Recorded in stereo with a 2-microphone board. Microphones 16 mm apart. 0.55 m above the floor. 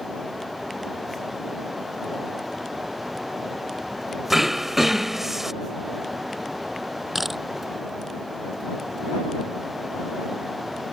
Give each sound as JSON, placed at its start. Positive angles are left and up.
{"t": 4.3, "sound": "throat clearing", "side_deg": -20}
{"t": 7.2, "sound": "a camera shutter", "side_deg": -15}